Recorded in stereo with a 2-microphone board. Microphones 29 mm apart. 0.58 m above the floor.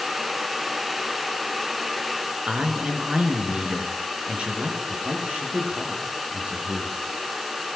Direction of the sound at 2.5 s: 35° right (ahead or behind).